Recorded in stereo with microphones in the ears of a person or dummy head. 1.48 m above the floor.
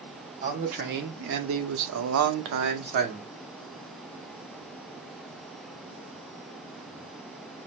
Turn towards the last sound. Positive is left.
turn(degrees=-35)  # may be behind; listen again after turning